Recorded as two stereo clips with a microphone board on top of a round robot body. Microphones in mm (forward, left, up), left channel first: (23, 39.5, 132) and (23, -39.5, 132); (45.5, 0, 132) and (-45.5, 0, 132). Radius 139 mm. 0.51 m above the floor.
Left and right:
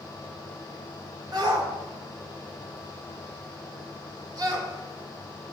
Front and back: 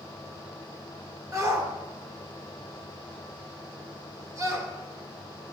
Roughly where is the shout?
Behind right.